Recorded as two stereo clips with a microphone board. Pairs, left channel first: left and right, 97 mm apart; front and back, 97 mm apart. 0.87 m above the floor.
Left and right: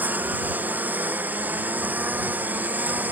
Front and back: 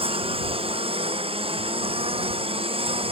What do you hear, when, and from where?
0.0 s a lawn mower: 165° right